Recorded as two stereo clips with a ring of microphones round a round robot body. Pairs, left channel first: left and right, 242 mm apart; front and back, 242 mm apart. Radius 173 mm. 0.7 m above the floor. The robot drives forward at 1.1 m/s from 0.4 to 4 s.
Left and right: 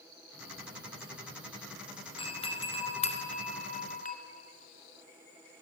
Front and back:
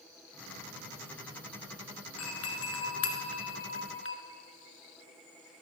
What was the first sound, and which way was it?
A doorbell, 20° left.